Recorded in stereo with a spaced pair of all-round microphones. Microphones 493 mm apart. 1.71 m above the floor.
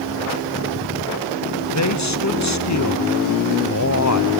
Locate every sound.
1.7 s a man speaking: 35° left (ahead or behind), 1.0 m